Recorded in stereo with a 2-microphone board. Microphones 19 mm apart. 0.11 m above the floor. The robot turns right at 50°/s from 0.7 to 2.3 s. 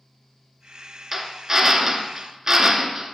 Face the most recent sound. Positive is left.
turn(degrees=-25)  # may be behind; listen again after turning